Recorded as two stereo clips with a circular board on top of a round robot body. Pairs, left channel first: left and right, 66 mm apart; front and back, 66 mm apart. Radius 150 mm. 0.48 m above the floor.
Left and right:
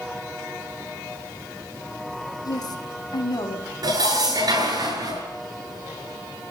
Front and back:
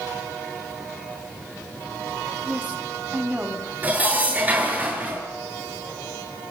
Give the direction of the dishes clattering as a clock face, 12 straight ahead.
4 o'clock.